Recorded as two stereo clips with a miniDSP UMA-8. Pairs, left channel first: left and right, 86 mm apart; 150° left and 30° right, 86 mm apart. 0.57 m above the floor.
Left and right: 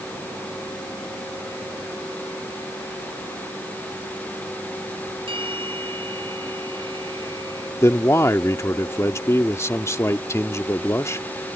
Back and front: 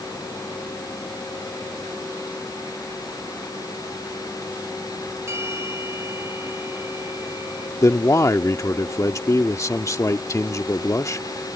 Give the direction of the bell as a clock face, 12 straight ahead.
3 o'clock.